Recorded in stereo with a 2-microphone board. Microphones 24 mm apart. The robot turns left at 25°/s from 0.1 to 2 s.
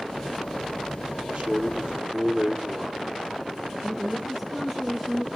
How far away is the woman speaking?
About 3.5 m.